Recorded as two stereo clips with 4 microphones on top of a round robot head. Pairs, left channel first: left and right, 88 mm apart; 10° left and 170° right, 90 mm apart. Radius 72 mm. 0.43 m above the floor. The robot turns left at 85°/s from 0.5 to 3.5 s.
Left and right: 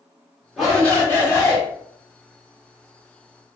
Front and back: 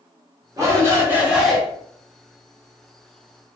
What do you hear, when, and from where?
0.6 s a shout: 175° right, 1.6 m; by 1.6 s 95° left, 1.6 m